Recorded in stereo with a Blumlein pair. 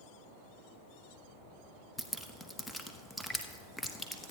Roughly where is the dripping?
Ahead.